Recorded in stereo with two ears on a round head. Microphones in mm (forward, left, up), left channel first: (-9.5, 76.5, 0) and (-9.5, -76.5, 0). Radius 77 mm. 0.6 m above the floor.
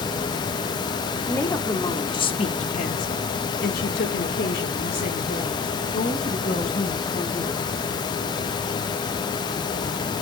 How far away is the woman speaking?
About 1.2 m.